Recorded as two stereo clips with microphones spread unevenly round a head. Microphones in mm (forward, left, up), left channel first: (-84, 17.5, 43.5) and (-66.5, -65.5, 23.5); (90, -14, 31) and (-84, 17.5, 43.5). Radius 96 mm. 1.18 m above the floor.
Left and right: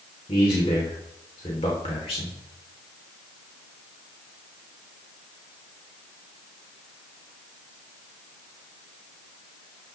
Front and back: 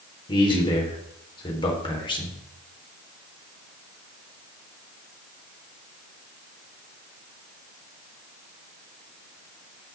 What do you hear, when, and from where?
0.3 s a man speaking: 55° left, 3.5 m